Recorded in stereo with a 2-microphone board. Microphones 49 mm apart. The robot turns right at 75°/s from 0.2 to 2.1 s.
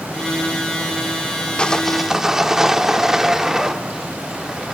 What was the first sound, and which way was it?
Sawing, 150° left.